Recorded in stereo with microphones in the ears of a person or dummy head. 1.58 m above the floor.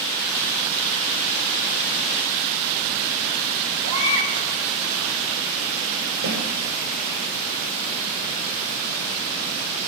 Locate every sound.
3.8 s a baby crying: 75° right (ahead or behind), 4 m
6.2 s a snare drum: 50° right (ahead or behind), 5.5 m